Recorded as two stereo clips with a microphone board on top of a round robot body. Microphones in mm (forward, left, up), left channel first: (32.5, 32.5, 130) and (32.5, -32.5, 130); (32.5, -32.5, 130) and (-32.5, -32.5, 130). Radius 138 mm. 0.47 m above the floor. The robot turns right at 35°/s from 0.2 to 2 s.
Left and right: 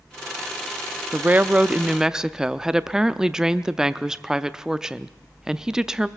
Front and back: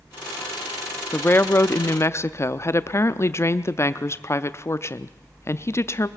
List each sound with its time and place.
1.1 s a woman speaking: 45° right, 0.8 m; by 6.1 s 15° right, 0.8 m